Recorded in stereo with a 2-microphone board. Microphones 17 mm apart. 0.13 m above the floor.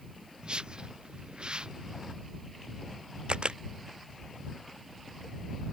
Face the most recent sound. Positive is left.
turn(degrees=-70)  # may be behind; listen again after turning